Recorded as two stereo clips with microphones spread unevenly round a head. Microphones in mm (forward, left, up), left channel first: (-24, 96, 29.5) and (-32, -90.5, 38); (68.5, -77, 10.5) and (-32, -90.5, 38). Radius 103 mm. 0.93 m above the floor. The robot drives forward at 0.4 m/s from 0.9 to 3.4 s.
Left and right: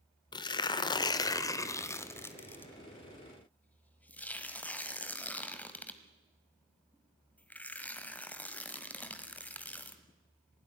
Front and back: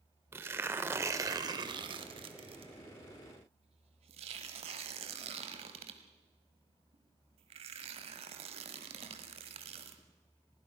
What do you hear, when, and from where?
0.3 s tearing paper: 145° left, 0.7 m; by 10.0 s 170° left, 1.5 m